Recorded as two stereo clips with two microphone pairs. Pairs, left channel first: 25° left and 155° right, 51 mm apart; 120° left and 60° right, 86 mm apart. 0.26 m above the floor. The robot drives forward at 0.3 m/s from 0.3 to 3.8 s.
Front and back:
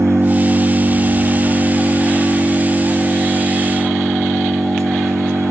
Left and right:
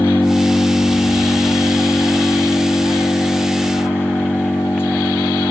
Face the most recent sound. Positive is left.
turn(degrees=180)